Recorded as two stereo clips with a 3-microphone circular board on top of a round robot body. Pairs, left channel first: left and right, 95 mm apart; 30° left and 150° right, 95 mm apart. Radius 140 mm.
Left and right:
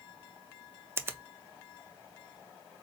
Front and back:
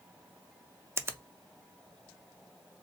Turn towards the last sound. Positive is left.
turn(degrees=-120)